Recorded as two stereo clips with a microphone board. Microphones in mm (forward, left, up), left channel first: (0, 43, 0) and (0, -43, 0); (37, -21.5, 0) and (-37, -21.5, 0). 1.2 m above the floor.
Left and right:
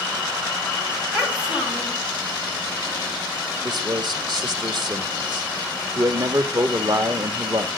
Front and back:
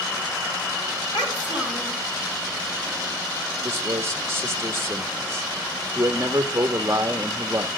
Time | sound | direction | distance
1.1 | a child speaking | 10° right | 4.5 m
3.6 | a man speaking | 125° right | 1.8 m